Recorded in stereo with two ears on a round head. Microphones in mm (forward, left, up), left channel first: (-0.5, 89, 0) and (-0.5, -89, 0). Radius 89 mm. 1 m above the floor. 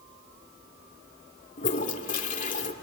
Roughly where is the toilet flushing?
Left.